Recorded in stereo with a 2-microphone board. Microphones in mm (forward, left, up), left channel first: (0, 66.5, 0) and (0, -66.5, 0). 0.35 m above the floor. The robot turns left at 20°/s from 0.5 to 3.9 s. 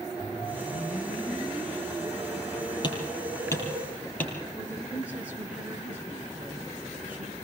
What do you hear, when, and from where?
0.2 s a whoosh: 50° left, 8.5 m; by 3.8 s 15° right, 8.5 m
2.8 s hammering: 35° left (ahead or behind), 5.5 m; by 4.3 s 15° left (ahead or behind), 5.5 m
4.5 s a woman speaking: 10° right (ahead or behind), 5.5 m